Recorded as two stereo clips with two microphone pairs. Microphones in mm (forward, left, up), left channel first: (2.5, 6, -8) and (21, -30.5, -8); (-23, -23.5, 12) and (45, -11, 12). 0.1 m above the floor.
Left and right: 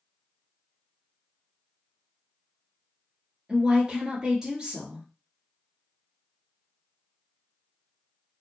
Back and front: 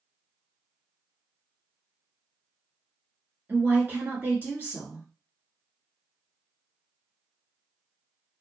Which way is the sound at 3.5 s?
15° right.